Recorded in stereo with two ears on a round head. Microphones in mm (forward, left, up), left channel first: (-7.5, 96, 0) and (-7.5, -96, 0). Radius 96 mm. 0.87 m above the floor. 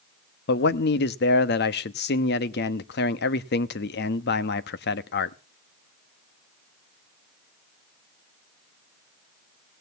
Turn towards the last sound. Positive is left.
turn(degrees=50)  # may be behind; listen again after turning